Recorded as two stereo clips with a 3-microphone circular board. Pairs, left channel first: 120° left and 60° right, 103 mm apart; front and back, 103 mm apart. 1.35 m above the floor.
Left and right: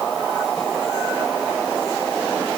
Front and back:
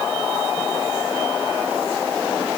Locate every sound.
Only background noise.